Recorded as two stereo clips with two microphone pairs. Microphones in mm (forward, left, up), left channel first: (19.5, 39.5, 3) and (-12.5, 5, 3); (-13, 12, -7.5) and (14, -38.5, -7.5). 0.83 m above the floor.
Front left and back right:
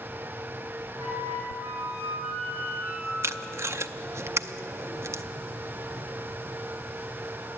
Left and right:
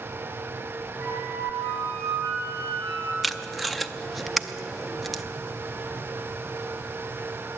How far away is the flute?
About 6 m.